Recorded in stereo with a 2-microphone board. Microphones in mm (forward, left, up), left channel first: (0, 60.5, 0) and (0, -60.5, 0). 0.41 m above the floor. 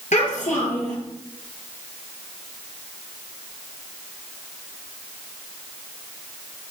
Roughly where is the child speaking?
Left.